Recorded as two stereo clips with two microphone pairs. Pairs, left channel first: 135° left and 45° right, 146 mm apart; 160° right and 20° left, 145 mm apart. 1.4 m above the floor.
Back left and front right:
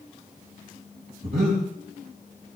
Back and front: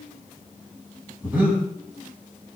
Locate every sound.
1.2 s breathing: 60° right, 4 m